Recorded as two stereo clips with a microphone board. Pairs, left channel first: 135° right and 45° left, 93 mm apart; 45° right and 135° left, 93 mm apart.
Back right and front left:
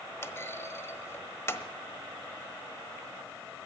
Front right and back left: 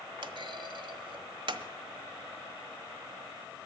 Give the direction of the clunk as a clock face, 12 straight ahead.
7 o'clock.